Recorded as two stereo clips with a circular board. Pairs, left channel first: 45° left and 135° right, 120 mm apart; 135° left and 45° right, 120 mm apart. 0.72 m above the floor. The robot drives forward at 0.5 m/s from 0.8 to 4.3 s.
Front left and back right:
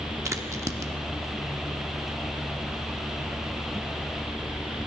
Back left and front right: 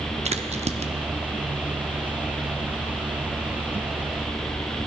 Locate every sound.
0.2 s a crack: 70° right, 0.6 m; by 0.9 s 75° right, 0.6 m